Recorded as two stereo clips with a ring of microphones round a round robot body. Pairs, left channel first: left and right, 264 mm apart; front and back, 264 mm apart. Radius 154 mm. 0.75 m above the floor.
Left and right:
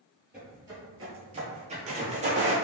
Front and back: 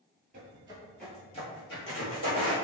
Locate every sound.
0.3 s footsteps: 170° right, 0.8 m; by 2.5 s 30° right, 1.3 m